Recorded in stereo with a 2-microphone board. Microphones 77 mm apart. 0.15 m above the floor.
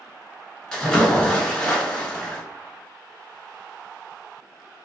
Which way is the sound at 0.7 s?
10° left (ahead or behind).